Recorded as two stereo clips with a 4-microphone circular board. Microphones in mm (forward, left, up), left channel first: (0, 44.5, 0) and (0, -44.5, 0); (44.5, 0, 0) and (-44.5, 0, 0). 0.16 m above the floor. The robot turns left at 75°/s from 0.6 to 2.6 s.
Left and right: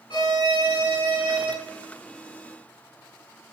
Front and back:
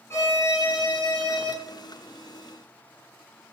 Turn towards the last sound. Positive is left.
turn(degrees=-95)